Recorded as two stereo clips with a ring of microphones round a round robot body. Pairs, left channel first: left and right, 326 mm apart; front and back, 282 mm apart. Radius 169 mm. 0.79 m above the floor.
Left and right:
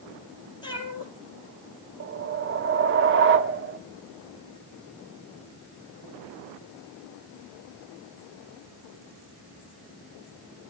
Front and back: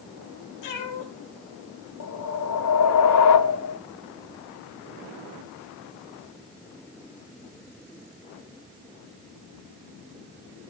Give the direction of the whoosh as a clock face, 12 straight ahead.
1 o'clock.